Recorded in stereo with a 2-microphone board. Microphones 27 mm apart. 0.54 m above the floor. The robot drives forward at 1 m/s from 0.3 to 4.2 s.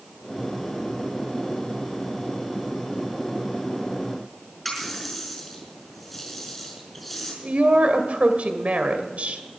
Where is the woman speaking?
65° right (ahead or behind), 2 m.